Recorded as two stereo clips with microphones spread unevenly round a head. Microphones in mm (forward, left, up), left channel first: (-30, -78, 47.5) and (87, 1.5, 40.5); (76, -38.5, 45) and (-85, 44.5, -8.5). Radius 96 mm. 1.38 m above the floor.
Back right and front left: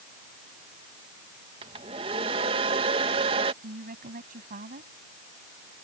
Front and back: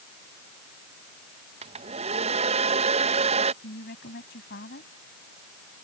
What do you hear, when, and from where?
1.6 s a hair dryer: 95° left
3.6 s a woman speaking: 10° left